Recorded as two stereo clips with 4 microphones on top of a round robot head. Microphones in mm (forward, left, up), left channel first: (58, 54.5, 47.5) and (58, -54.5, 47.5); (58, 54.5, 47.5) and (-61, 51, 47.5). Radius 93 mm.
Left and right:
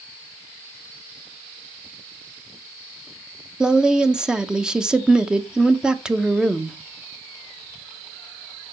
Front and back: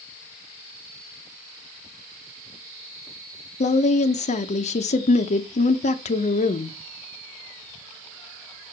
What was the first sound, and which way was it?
A woman speaking, 5° right.